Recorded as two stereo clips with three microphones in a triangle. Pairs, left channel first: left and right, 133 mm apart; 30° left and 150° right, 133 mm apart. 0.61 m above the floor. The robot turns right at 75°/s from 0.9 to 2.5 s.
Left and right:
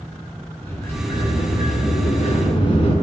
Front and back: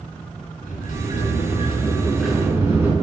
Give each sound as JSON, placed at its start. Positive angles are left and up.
{"t": 0.6, "sound": "a sliding door", "azimuth_deg": 20, "distance_m": 3.5}